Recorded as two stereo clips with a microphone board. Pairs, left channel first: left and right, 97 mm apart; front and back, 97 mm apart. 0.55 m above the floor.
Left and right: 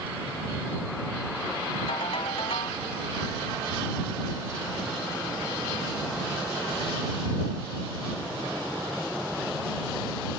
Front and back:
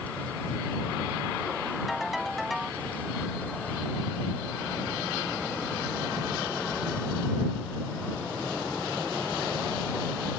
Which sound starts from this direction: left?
A ringtone, at 1.9 s.